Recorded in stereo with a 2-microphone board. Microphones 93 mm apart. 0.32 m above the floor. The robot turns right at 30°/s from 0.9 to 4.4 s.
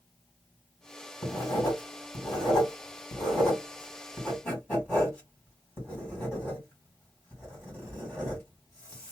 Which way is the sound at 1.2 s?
40° left (ahead or behind).